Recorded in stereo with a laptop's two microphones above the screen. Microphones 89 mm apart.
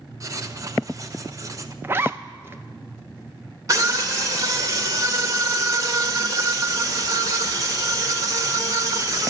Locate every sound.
0.2 s writing: 35° right (ahead or behind), 0.8 m
1.8 s a zipper: 25° right (ahead or behind), 0.7 m
3.7 s a scream: 40° right (ahead or behind), 1.8 m